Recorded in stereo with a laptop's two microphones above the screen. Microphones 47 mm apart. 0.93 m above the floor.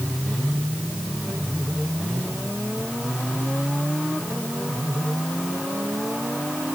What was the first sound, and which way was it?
Only background noise.